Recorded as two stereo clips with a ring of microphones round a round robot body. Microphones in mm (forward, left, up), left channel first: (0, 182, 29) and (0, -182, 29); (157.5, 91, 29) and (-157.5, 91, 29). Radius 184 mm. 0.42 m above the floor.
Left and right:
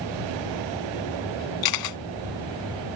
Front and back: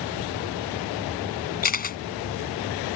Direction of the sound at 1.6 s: 60° left.